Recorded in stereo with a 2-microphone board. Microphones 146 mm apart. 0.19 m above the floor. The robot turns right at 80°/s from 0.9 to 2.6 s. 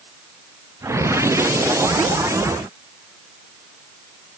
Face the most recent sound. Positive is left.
No sound to turn to.